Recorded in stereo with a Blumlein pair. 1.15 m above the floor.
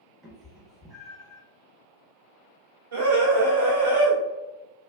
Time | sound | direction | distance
0.2 | a cat meowing | 5° right | 0.9 m
2.9 | a scream | 65° right | 1.0 m